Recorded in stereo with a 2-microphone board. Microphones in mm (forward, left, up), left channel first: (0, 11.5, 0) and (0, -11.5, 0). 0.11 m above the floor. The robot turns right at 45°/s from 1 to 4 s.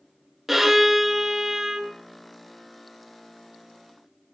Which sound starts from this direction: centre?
A violin, at 0.5 s.